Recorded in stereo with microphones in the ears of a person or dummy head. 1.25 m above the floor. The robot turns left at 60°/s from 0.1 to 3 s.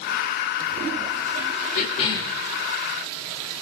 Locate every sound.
1.8 s a cough: 55° left, 2.5 m; by 2.4 s 20° left, 2.5 m